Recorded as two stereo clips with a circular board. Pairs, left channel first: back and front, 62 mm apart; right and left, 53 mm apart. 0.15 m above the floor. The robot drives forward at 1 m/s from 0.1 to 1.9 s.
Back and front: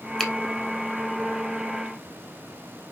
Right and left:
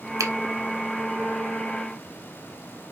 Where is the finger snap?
100° left, 3 m.